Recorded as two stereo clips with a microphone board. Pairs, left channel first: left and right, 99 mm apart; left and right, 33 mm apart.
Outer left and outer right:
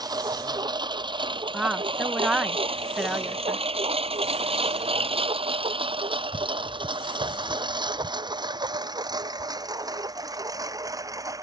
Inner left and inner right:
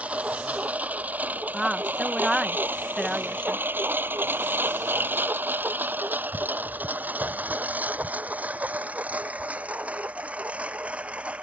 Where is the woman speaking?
10° right (ahead or behind).